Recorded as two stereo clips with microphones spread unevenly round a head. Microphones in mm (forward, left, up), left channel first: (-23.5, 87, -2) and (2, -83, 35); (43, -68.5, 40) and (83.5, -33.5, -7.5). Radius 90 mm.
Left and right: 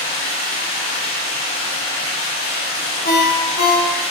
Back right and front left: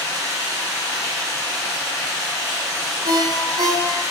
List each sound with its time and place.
0.0 s running water: 155° left, 1.6 m
3.0 s a ringtone: 50° left, 0.7 m